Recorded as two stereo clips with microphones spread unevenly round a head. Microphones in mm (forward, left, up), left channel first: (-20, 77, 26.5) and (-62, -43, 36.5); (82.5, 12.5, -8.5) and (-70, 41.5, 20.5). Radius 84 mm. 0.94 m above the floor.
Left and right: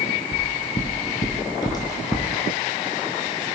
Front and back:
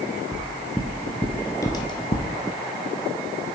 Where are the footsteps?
110° left, 1.4 m; by 2.3 s straight ahead, 1.0 m.